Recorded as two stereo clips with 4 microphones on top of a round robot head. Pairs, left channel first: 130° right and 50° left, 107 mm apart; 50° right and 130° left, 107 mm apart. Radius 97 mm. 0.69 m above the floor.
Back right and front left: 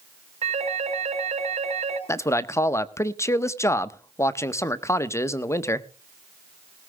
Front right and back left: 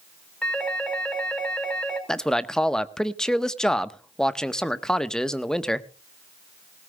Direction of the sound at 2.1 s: 125° right.